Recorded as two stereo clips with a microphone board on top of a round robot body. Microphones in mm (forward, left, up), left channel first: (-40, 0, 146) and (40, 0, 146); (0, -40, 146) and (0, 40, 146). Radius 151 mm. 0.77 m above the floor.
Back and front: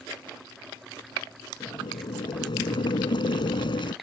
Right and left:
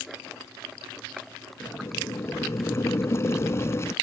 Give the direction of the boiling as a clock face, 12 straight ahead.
5 o'clock.